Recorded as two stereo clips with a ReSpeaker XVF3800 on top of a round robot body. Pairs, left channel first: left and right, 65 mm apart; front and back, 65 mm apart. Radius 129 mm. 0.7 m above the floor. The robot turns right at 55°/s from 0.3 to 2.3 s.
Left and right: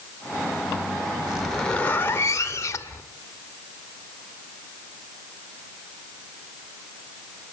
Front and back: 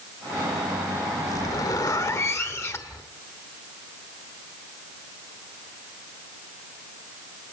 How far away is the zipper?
About 2 m.